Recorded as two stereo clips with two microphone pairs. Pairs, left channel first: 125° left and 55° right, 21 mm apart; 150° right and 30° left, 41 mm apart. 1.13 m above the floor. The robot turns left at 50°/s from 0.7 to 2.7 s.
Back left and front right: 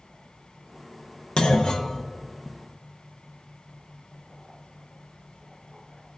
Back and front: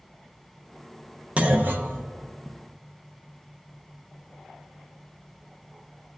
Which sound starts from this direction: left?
A clunk, at 1.4 s.